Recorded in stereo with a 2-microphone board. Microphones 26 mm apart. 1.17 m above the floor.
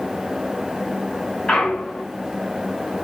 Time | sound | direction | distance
1.5 | a clunk | 25° left (ahead or behind) | 9.5 m